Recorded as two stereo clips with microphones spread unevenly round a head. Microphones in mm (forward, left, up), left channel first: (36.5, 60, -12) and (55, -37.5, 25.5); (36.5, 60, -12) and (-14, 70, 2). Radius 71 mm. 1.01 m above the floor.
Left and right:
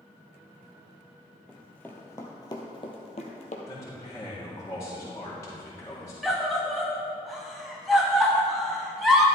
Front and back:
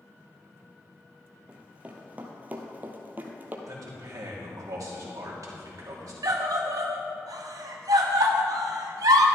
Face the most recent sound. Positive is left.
turn(degrees=-170)